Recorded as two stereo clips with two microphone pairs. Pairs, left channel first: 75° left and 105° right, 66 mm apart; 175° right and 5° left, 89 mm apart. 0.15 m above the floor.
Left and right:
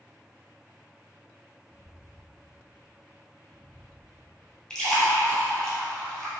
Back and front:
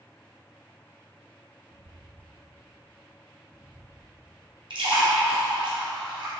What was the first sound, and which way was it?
Footsteps, 10° right.